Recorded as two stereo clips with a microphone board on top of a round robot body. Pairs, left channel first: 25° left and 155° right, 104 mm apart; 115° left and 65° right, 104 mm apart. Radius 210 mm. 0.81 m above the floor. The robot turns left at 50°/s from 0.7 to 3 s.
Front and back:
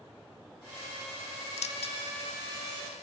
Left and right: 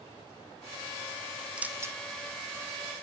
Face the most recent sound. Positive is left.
turn(degrees=-60)